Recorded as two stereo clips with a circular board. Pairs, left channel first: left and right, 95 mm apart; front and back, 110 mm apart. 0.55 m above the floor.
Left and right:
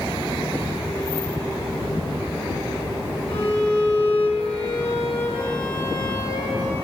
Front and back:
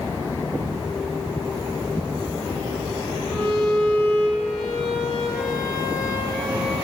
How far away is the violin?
About 7 m.